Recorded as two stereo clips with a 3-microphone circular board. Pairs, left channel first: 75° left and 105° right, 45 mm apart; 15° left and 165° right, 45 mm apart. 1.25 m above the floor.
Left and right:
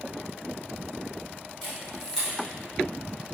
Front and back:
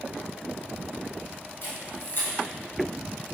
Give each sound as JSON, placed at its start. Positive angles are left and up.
{"t": 1.6, "sound": "a camera shutter", "azimuth_deg": -20, "distance_m": 1.1}